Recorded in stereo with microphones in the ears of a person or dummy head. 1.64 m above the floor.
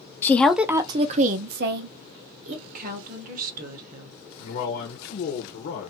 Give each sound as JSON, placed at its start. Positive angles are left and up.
{"t": 0.2, "sound": "a woman speaking", "side_deg": 15, "distance_m": 0.6}
{"t": 2.7, "sound": "a woman speaking", "side_deg": -55, "distance_m": 1.0}
{"t": 4.4, "sound": "a man speaking", "side_deg": 60, "distance_m": 0.9}